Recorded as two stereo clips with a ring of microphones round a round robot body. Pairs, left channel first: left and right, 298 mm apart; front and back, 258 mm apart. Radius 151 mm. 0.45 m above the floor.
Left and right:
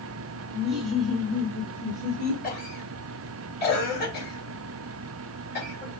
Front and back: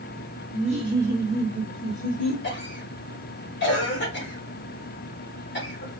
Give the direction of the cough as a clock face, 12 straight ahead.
11 o'clock.